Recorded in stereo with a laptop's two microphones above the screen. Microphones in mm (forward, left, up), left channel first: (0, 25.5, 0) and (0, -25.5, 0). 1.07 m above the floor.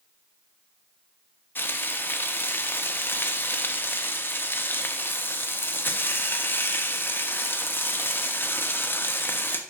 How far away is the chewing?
No chewing in this recording.